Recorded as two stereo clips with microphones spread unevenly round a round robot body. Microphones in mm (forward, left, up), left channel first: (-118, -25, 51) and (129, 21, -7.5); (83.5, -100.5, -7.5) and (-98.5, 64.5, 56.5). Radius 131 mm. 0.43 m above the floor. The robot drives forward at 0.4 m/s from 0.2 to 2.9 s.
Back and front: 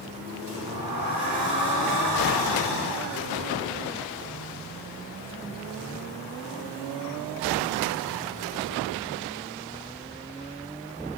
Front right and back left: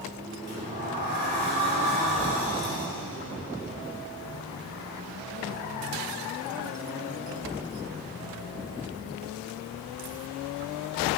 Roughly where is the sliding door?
Left.